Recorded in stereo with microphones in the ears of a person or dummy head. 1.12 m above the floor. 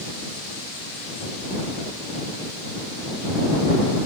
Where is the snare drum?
No snare drum in this recording.